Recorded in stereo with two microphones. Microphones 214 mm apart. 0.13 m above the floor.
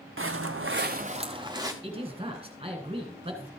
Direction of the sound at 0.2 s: 65° right (ahead or behind).